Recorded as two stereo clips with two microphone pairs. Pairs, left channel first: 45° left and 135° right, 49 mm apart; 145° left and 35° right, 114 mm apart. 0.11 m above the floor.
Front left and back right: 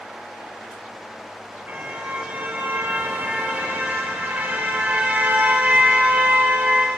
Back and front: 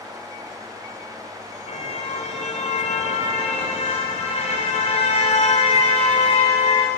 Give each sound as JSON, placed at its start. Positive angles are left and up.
{"t": 1.7, "sound": "a car horn", "azimuth_deg": 165, "distance_m": 4.0}